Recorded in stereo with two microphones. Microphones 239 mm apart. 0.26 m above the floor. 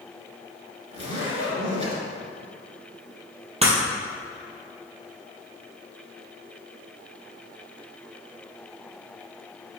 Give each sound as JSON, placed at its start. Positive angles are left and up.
{"t": 0.9, "sound": "a zipper", "side_deg": -25, "distance_m": 2.5}
{"t": 3.6, "sound": "breaking glass", "side_deg": -25, "distance_m": 1.9}